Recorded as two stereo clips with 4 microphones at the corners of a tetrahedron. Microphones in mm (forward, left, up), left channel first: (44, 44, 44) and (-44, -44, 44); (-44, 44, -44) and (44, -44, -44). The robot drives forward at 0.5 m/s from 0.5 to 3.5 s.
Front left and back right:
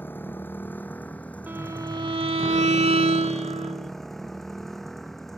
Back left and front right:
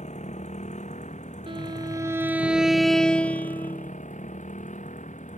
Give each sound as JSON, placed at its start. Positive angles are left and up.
{"t": 0.0, "sound": "a motorcycle", "azimuth_deg": 120}
{"t": 1.5, "sound": "a violin", "azimuth_deg": -65}